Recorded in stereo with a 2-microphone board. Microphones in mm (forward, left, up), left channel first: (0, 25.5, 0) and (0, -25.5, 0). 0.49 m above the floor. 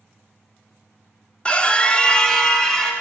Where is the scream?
20° left (ahead or behind), 0.9 m; by 2.9 s 10° left (ahead or behind), 1.8 m.